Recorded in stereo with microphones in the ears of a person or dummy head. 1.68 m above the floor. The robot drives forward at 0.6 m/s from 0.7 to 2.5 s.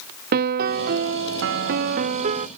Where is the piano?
45° right (ahead or behind); by 2.5 s 30° right (ahead or behind).